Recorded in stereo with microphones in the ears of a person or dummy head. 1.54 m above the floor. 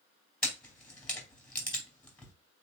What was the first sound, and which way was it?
A camera shutter, 5° left (ahead or behind).